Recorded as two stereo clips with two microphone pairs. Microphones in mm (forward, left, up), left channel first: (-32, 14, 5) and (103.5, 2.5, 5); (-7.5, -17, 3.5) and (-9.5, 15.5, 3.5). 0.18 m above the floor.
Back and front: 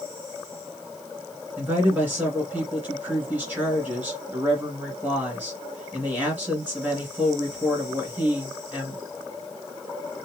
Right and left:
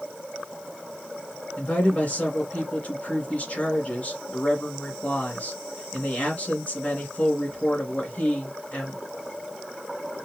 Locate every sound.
1.6 s a woman speaking: 75° right, 2 m